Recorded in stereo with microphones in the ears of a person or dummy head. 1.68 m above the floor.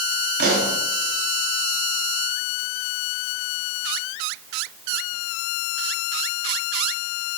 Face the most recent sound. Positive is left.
turn(degrees=-60)  # may be behind; listen again after turning